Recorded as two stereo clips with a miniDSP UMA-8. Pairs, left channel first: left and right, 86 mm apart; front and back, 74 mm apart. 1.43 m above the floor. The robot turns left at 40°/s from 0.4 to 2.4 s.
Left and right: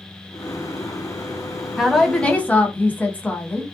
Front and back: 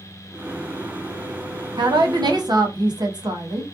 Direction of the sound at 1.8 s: 170° right.